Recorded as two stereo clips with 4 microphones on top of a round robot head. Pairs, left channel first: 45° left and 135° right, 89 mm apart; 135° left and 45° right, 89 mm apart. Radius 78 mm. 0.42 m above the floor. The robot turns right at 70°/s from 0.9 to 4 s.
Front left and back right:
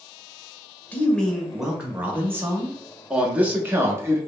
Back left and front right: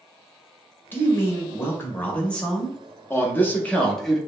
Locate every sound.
0.9 s a man speaking: 100° left, 0.9 m; by 2.8 s 130° right, 0.9 m
3.1 s a man speaking: 150° left, 0.8 m; by 4.2 s 145° right, 0.8 m